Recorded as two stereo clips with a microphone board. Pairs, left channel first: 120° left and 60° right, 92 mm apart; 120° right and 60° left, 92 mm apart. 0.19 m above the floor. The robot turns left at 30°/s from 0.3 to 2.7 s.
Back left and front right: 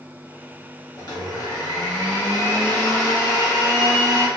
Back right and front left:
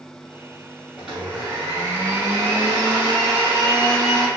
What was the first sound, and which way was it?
A blender, 140° left.